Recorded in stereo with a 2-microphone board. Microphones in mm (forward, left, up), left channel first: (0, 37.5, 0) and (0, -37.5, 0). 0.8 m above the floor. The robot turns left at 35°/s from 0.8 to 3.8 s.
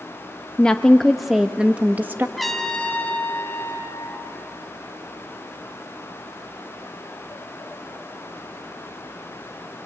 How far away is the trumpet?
About 1.8 m.